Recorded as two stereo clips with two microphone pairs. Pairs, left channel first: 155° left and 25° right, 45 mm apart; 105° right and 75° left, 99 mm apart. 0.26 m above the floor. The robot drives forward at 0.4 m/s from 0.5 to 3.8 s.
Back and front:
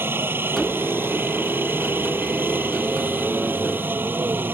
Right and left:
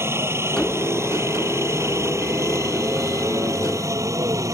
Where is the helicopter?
10° left; by 4.5 s 20° left.